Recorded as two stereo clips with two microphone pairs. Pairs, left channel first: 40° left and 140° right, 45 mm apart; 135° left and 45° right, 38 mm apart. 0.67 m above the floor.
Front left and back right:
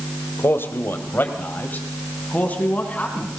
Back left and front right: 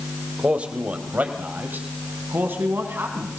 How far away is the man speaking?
About 2.5 m.